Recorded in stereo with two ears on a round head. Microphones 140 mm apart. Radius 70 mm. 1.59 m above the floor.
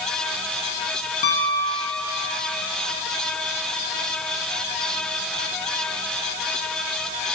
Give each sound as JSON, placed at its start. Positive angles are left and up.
{"t": 1.2, "sound": "a piano", "side_deg": 45, "distance_m": 0.8}